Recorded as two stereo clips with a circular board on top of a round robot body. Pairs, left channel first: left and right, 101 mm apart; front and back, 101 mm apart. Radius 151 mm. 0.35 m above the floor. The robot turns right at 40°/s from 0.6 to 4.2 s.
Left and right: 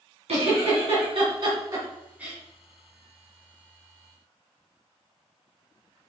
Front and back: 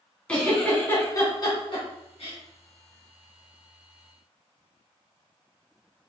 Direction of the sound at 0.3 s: 80° right.